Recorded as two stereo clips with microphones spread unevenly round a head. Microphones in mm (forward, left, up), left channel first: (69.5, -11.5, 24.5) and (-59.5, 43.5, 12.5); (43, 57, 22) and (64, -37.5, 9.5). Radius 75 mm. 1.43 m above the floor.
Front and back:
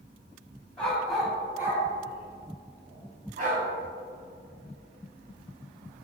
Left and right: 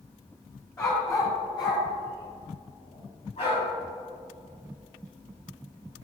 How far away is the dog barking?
About 2.5 m.